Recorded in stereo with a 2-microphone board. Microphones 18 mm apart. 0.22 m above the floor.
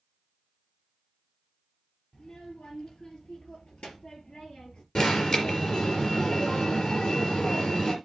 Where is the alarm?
50° left (ahead or behind), 4 m.